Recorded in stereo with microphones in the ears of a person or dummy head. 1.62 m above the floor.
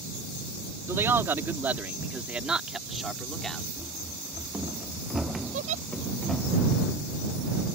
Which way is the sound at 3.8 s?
15° right (ahead or behind).